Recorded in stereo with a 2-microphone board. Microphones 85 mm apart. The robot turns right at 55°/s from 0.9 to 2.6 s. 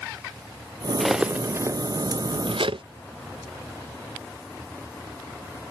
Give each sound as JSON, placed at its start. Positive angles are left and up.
{"t": 1.0, "sound": "cutlery clinking", "side_deg": 0}